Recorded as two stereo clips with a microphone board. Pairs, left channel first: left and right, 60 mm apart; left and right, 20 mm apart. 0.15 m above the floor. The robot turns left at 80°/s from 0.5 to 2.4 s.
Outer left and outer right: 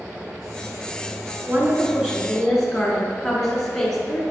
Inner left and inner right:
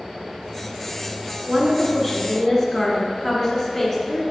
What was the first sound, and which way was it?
A woman speaking, 115° right.